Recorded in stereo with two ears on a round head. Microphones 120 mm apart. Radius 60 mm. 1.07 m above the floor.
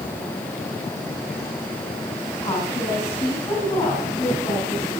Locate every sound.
2.4 s a woman speaking: 25° left (ahead or behind), 8 m